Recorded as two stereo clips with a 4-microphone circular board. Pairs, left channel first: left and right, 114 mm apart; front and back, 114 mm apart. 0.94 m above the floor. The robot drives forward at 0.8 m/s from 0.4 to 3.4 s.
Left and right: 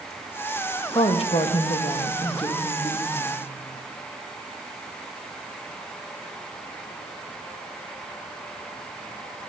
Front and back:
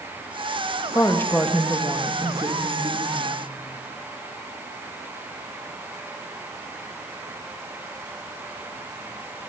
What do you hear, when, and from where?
0.9 s a woman speaking: 60° left, 1.0 m; by 3.4 s 150° left, 1.7 m